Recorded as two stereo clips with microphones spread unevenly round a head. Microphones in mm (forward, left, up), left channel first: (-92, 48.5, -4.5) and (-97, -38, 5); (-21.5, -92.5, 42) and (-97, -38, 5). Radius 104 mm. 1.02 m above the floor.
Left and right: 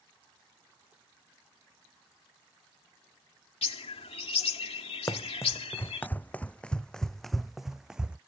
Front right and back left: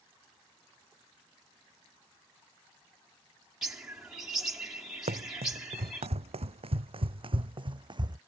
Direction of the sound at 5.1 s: 145° left.